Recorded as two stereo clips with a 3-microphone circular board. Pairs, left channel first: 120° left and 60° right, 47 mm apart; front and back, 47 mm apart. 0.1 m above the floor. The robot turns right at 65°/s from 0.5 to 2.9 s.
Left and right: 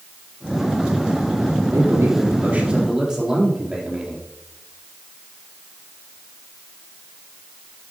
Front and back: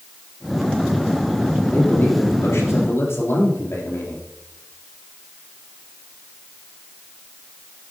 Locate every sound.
1.7 s a man speaking: 65° right, 3.5 m; by 4.3 s 10° left, 3.5 m